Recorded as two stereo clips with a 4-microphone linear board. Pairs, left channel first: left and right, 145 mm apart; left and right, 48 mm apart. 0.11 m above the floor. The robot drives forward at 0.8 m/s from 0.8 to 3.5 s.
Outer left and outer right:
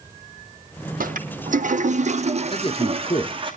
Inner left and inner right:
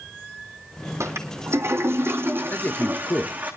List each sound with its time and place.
1.0 s a toilet flushing: 75° right (ahead or behind), 1.6 m; by 3.5 s 35° right (ahead or behind), 3 m
2.5 s a man speaking: 40° left (ahead or behind), 1.7 m; by 3.3 s 30° left (ahead or behind), 2 m